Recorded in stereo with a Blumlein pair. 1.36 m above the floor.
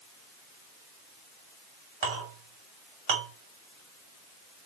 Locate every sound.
2.0 s a clink: 50° right, 2.5 m